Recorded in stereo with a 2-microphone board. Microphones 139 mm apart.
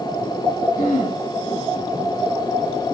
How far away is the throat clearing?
About 9 m.